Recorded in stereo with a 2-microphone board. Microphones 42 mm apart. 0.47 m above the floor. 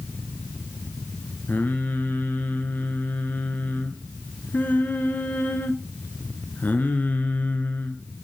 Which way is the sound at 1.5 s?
50° left (ahead or behind).